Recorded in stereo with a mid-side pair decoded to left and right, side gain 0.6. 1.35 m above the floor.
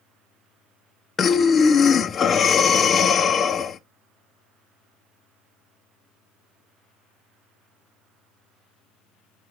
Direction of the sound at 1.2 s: 35° left.